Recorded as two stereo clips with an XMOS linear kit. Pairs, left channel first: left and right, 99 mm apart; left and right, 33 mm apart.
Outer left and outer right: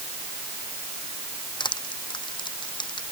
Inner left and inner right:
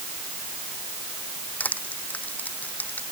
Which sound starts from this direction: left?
Crushing, at 1.6 s.